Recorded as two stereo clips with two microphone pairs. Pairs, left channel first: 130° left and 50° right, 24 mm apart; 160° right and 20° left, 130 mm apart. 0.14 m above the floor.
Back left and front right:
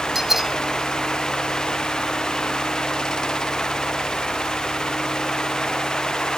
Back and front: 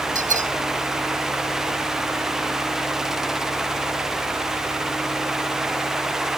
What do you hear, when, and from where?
0.1 s a bell: 30° left